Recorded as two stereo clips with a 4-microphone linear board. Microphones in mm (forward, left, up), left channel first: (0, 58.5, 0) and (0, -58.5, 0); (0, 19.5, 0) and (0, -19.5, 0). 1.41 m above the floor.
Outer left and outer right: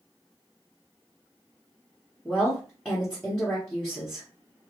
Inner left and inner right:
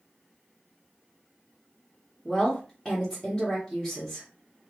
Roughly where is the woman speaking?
Centre.